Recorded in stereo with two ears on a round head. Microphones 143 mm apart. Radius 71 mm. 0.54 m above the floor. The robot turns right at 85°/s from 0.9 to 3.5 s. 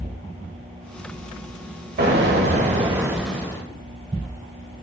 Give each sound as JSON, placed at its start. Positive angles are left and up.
{"t": 2.0, "sound": "an explosion", "azimuth_deg": -110, "distance_m": 1.7}